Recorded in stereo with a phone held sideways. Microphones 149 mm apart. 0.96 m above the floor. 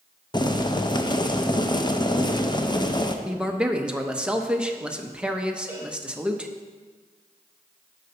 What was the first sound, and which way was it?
Boiling, 30° left (ahead or behind).